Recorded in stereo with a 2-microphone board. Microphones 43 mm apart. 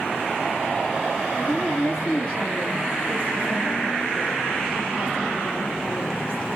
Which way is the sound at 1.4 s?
35° left (ahead or behind).